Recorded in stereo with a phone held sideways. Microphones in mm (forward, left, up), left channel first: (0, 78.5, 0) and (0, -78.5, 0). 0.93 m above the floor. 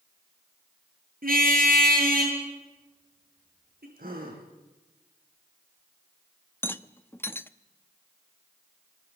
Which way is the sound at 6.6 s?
15° left (ahead or behind).